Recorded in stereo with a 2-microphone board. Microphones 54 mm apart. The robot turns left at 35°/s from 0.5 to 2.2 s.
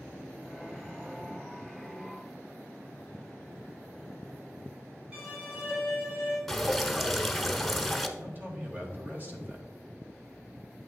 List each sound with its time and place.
5.1 s a violin: 25° right (ahead or behind), 3 m
6.5 s dripping: 5° left (ahead or behind), 0.7 m
8.2 s a man speaking: 40° right (ahead or behind), 1.6 m